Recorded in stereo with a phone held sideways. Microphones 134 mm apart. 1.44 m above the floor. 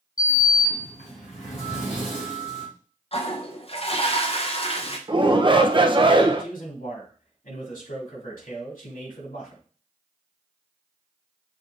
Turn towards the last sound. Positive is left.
turn(degrees=70)  # may be behind; listen again after turning